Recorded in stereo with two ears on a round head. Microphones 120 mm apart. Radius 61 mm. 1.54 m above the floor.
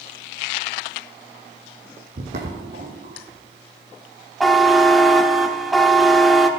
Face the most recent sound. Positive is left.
turn(degrees=0)  # may be behind; listen again after turning